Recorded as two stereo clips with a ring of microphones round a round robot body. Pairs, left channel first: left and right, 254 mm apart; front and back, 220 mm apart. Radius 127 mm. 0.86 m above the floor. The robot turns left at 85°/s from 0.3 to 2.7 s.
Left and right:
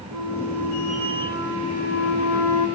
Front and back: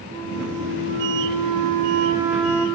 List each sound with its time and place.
0.1 s a flute: 90° right, 4 m; by 2.7 s 70° left, 4 m